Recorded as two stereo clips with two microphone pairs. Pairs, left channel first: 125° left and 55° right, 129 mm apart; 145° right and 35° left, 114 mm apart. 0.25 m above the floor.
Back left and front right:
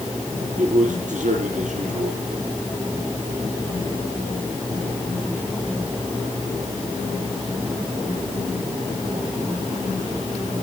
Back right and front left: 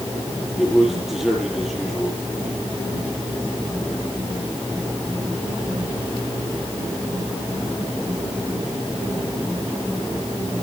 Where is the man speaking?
55° right, 6 m.